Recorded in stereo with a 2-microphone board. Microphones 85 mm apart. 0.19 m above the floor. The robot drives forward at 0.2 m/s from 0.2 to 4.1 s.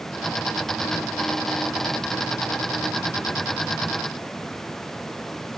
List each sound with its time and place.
Only background noise.